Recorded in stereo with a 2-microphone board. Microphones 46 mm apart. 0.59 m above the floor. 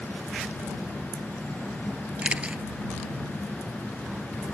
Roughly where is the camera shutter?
Right.